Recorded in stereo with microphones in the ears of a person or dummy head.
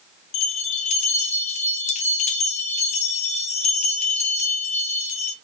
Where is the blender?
No blender in this recording.